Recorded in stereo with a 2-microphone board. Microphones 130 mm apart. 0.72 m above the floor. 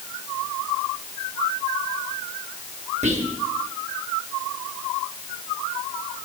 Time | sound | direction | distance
3.0 | whispering | 65° right (ahead or behind) | 1.1 m